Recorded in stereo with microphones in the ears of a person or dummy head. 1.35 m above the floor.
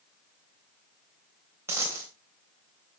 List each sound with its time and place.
1.7 s a dropped coin: 20° right (ahead or behind), 3.5 m